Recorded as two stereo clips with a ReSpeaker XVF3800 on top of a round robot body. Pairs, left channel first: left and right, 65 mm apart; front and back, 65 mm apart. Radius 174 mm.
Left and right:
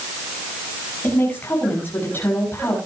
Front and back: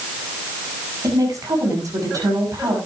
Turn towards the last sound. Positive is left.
turn(degrees=150)